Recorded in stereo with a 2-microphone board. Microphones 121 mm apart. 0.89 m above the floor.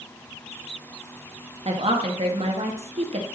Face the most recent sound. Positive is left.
turn(degrees=-55)  # may be behind; listen again after turning